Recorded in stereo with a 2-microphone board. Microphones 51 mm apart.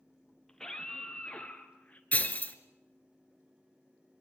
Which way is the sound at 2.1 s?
30° left (ahead or behind).